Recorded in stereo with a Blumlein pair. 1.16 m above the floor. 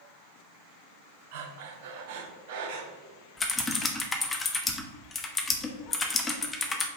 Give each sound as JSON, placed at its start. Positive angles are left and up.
{"t": 1.3, "sound": "breathing", "azimuth_deg": -50, "distance_m": 1.1}
{"t": 3.4, "sound": "typing on a keyboard", "azimuth_deg": 15, "distance_m": 0.9}